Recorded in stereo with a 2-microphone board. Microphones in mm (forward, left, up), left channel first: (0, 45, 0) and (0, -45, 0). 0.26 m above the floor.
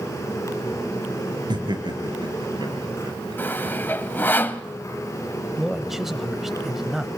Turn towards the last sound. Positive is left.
turn(degrees=-5)  # may be behind; listen again after turning